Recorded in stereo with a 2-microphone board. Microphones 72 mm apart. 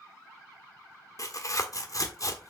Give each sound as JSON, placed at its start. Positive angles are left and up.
{"t": 1.2, "sound": "tearing paper", "side_deg": 50, "distance_m": 1.4}